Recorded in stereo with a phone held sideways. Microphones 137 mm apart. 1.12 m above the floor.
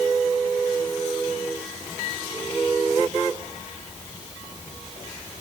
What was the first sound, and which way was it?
Only background noise.